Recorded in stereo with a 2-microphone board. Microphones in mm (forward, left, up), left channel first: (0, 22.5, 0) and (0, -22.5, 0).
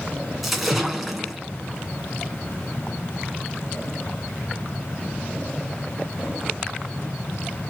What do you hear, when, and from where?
0.4 s a splash: 5° right (ahead or behind), 1.5 m